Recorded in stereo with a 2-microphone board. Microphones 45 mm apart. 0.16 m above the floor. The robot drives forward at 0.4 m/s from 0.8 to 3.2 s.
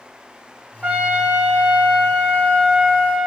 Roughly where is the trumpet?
Centre.